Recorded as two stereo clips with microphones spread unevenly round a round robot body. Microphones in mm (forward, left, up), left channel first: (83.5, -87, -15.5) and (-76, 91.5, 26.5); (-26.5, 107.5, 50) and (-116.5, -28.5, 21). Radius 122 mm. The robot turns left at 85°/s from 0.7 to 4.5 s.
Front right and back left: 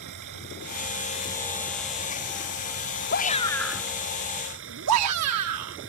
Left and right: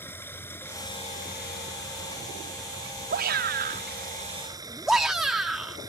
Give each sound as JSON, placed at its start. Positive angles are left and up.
{"t": 0.0, "sound": "running water", "azimuth_deg": 130}
{"t": 3.1, "sound": "a shout", "azimuth_deg": -90}